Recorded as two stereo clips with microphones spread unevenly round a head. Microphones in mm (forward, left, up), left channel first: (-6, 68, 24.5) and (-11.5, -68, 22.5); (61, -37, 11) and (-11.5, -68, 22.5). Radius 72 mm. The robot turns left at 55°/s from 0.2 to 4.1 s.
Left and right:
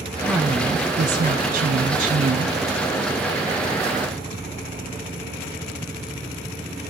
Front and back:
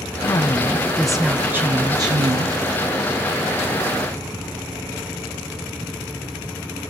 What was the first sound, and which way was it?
A woman speaking, 15° right.